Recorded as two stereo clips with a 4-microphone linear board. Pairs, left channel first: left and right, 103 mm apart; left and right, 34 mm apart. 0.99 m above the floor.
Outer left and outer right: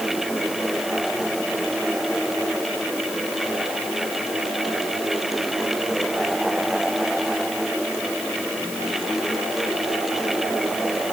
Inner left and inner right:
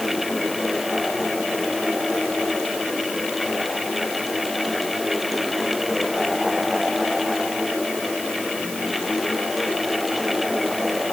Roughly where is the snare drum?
No snare drum in this recording.